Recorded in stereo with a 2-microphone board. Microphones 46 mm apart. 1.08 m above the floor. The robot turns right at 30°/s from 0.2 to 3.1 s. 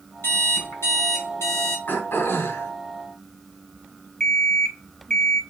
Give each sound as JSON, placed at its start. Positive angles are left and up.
{"t": 0.2, "sound": "an alarm clock", "azimuth_deg": 60, "distance_m": 4.5}
{"t": 1.9, "sound": "throat clearing", "side_deg": 55, "distance_m": 3.5}
{"t": 4.2, "sound": "an alarm clock", "side_deg": 15, "distance_m": 1.4}